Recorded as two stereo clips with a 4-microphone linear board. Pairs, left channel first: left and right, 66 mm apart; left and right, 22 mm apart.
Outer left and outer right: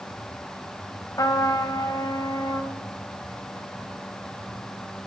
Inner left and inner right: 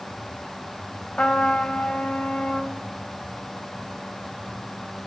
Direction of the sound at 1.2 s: 70° left (ahead or behind).